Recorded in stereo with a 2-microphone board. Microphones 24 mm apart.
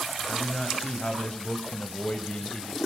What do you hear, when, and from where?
0.3 s a man speaking: 30° left (ahead or behind), 3 m; by 2.8 s 50° left (ahead or behind), 2.5 m